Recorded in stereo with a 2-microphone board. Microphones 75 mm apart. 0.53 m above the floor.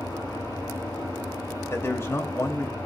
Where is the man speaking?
35° left (ahead or behind), 2 m.